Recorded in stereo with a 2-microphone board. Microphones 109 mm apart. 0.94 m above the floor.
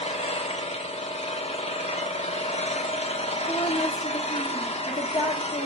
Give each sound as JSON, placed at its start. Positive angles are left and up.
{"t": 0.0, "sound": "an engine running", "side_deg": 70, "distance_m": 0.9}
{"t": 3.5, "sound": "a woman speaking", "side_deg": 45, "distance_m": 1.7}